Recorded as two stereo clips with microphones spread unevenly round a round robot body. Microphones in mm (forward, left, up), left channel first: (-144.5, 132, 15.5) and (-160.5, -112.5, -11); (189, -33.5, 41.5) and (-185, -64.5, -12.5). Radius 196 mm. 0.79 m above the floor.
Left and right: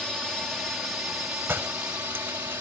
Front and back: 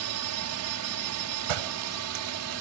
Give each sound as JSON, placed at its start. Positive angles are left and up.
{"t": 0.0, "sound": "a drone", "azimuth_deg": 180}
{"t": 1.5, "sound": "a door slam", "azimuth_deg": -175}